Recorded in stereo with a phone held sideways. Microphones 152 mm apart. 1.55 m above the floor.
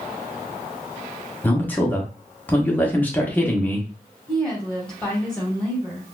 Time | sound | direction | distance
1.4 | a man speaking | 10° left (ahead or behind) | 0.9 m
4.3 | a woman speaking | 5° left (ahead or behind) | 2 m